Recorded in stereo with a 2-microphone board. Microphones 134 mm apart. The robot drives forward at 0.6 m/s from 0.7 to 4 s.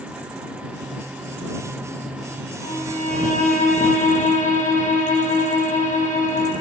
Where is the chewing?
No chewing in this recording.